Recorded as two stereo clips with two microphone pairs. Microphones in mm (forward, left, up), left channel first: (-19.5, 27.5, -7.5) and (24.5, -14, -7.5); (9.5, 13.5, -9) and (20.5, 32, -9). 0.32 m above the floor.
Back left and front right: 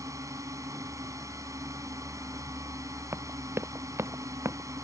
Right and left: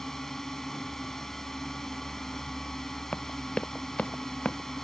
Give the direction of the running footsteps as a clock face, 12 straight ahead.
3 o'clock.